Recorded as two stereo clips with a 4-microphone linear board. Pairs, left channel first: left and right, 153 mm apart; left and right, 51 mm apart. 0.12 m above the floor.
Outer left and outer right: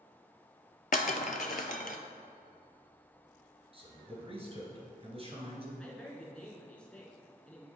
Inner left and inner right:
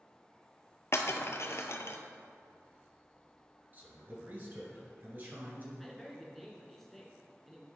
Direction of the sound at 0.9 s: 60° left (ahead or behind).